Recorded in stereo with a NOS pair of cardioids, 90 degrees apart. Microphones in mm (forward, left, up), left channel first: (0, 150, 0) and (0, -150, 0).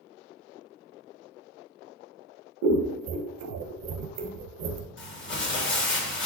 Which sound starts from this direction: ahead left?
Crumpling, at 5.0 s.